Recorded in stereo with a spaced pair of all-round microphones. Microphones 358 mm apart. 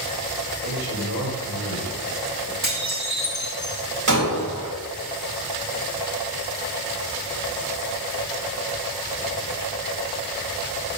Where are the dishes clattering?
45° right (ahead or behind), 5 m.